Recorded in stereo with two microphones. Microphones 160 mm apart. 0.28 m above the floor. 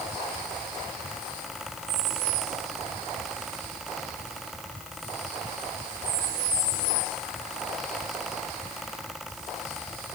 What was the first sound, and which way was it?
Only background noise.